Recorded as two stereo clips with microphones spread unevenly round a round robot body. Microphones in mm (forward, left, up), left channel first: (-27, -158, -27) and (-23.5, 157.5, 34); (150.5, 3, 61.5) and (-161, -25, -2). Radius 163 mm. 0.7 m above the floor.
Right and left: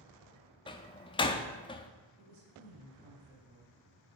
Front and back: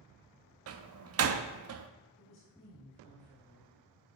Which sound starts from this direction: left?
A woman speaking, at 2.2 s.